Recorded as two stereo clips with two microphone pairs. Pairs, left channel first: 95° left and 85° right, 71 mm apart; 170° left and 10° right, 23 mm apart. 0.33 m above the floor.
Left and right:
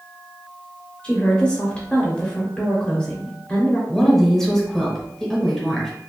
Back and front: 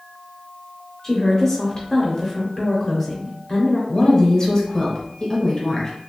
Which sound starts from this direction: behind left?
A woman speaking, at 1.0 s.